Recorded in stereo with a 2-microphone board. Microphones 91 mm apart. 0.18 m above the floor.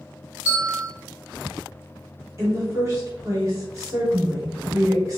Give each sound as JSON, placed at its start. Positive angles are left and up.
{"t": 0.5, "sound": "a bell", "side_deg": -20, "distance_m": 1.3}
{"t": 2.4, "sound": "a woman speaking", "side_deg": -35, "distance_m": 1.4}